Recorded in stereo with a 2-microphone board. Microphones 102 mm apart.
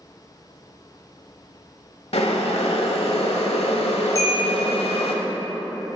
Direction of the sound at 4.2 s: 35° left (ahead or behind).